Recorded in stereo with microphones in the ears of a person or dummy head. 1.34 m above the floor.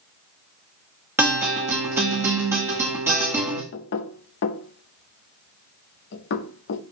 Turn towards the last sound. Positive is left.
turn(degrees=60)  # may be behind; listen again after turning